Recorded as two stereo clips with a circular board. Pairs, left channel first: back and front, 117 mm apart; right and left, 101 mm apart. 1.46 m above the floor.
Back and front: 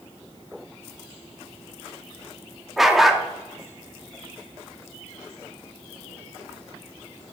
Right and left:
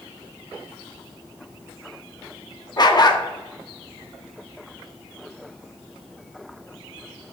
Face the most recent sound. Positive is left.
turn(degrees=-85)